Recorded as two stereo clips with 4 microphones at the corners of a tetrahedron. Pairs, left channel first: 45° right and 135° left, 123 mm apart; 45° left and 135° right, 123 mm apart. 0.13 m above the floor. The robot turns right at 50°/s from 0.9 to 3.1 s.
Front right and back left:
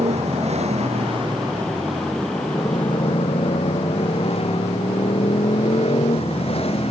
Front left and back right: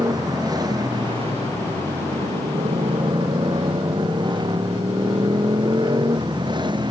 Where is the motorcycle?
165° left; by 6.9 s 85° right.